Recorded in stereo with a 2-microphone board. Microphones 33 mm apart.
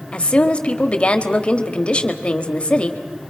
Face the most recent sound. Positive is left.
turn(degrees=35)  # may be behind; listen again after turning